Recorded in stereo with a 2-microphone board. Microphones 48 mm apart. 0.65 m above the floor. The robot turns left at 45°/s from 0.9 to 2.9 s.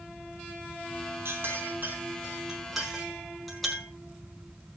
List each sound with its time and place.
1.2 s a clink: 65° right (ahead or behind), 5.5 m; by 3.9 s 5° left (ahead or behind), 5.5 m